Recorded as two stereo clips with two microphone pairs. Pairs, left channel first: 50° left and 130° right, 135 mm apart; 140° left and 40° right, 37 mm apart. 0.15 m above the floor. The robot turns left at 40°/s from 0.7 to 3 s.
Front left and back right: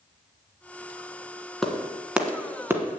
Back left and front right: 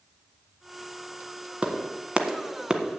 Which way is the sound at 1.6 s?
35° right.